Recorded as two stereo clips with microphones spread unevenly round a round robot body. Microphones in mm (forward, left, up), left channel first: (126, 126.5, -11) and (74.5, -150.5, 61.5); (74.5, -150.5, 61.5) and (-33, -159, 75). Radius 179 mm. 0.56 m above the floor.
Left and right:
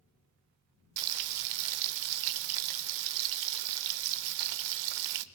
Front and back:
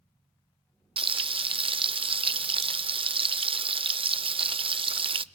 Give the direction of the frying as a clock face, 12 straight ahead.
4 o'clock.